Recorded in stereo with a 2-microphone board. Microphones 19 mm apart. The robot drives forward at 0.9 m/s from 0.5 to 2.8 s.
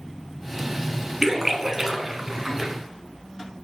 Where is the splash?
20° right (ahead or behind), 1.4 m.